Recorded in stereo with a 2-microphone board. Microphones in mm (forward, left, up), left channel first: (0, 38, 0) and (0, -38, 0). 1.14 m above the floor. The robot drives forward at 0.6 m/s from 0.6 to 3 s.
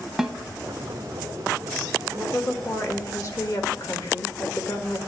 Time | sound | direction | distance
0.2 | a snare drum | 5° right (ahead or behind) | 0.8 m
2.1 | a woman speaking | 35° left (ahead or behind) | 2.0 m